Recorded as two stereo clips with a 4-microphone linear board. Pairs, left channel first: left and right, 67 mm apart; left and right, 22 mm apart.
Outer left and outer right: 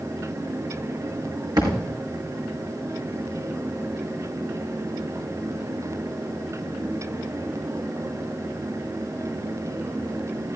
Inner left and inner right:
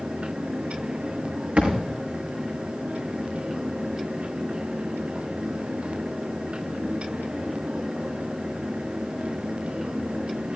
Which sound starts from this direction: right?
A thud, at 1.6 s.